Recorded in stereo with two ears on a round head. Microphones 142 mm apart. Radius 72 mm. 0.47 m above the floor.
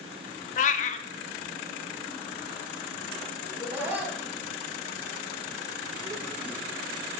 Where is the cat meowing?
45° left (ahead or behind), 0.5 m.